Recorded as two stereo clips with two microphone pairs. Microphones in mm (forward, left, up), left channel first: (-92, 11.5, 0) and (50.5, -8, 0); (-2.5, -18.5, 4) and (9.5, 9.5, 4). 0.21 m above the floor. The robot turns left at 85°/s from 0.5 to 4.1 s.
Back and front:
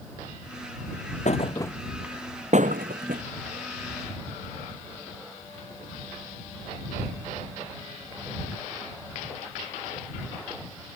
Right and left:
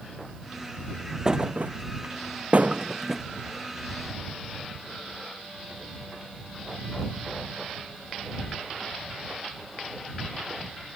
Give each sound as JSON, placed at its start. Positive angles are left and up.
{"t": 1.2, "sound": "a thud", "azimuth_deg": 140}